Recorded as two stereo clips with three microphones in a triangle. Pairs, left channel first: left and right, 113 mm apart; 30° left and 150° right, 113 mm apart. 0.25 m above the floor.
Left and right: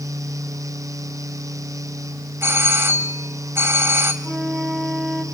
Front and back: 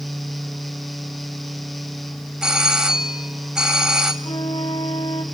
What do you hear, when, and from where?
2.4 s a doorbell: 75° right, 1.5 m
4.2 s a flute: straight ahead, 1.8 m